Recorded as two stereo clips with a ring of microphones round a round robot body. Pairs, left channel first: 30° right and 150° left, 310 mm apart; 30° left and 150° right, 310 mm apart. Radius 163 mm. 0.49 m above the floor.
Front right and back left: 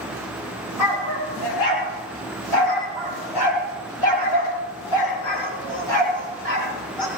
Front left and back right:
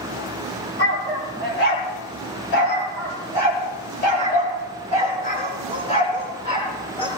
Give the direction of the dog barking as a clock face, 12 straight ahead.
1 o'clock.